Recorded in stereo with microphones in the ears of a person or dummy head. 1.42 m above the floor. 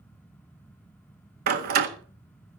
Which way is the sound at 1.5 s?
50° right (ahead or behind).